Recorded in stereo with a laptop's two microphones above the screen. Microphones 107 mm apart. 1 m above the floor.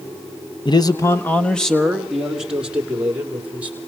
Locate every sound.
0.7 s a man speaking: 45° left (ahead or behind), 0.9 m; by 3.8 s 15° right (ahead or behind), 3.5 m